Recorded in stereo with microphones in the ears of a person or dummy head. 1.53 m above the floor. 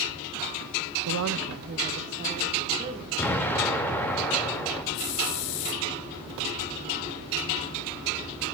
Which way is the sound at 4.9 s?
65° left (ahead or behind).